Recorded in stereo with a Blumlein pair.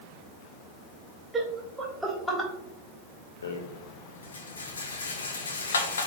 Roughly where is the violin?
No violin in this recording.